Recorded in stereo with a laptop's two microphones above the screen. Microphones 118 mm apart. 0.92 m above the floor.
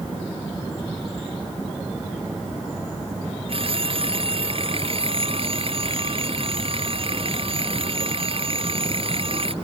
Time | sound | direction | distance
3.5 | a phone ringing | 50° right (ahead or behind) | ?